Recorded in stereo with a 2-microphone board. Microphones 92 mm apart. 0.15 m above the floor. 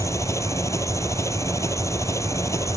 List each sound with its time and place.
0.0 s an engine running: 30° left (ahead or behind)